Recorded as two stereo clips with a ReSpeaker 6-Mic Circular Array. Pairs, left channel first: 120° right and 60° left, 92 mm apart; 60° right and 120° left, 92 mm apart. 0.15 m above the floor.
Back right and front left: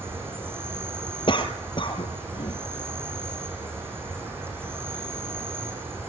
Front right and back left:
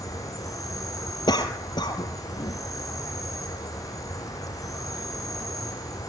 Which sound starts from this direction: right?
A cough, at 1.3 s.